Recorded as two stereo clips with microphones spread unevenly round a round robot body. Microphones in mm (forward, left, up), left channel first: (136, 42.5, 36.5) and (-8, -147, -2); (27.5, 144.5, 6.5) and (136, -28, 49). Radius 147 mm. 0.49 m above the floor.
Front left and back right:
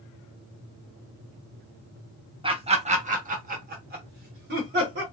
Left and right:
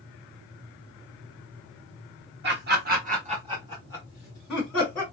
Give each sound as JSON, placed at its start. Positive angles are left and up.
{"t": 2.4, "sound": "laughter", "azimuth_deg": -80, "distance_m": 1.0}